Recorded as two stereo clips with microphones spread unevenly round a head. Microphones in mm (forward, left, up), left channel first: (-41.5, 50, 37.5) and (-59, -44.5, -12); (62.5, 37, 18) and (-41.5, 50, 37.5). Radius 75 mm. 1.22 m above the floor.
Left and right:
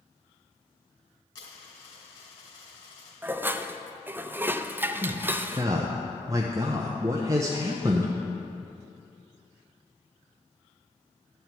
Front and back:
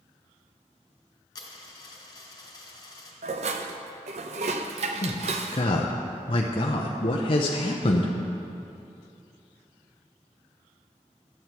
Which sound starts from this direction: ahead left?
A dropped coin, at 1.4 s.